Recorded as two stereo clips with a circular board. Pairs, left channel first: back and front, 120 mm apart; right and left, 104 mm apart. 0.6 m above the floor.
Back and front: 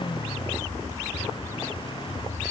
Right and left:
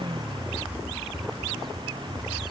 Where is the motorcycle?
130° left.